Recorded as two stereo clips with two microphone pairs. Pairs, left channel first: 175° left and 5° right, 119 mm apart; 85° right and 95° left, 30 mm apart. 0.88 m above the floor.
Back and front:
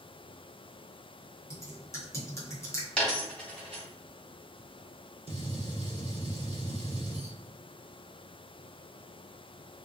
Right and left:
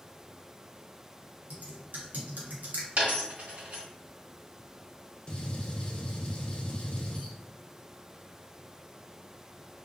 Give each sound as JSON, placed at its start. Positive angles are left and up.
{"t": 1.5, "sound": "typing on a keyboard", "azimuth_deg": 110, "distance_m": 0.8}
{"t": 3.0, "sound": "a dropped coin", "azimuth_deg": 95, "distance_m": 1.4}
{"t": 5.3, "sound": "a gunshot", "azimuth_deg": -30, "distance_m": 0.6}